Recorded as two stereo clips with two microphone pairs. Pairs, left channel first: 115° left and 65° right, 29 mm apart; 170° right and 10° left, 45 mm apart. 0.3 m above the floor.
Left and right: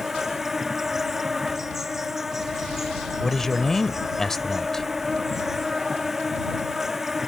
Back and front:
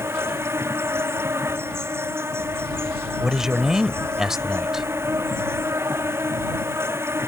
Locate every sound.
0.0 s an insect: 10° left
3.2 s a man speaking: 65° left